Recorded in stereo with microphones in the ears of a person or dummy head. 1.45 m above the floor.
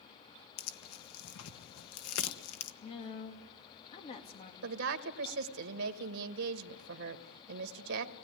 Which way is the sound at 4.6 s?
70° right (ahead or behind).